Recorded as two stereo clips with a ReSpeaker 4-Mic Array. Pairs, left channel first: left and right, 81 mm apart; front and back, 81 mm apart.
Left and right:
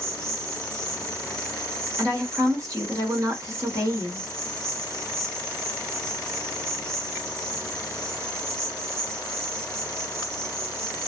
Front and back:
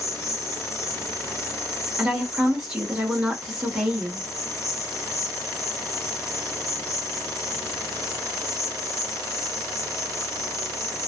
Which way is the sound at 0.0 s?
45° right.